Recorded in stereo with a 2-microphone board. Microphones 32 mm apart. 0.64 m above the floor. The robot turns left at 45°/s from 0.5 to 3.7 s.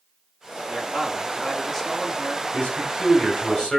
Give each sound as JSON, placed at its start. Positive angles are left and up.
{"t": 0.7, "sound": "a man speaking", "azimuth_deg": -140, "distance_m": 1.8}
{"t": 2.5, "sound": "a man speaking", "azimuth_deg": 90, "distance_m": 3.5}